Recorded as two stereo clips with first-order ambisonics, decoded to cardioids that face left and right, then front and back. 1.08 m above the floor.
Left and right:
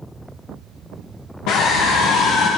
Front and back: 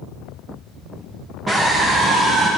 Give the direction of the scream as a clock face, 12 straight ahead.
9 o'clock.